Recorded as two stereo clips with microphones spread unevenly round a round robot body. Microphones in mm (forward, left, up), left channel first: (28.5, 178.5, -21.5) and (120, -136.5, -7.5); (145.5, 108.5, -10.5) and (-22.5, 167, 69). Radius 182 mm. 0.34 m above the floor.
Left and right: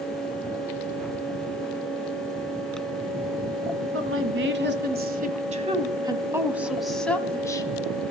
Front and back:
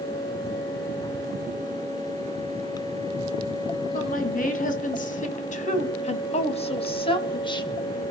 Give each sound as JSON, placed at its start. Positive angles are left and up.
{"t": 3.9, "sound": "a woman speaking", "azimuth_deg": -25, "distance_m": 3.5}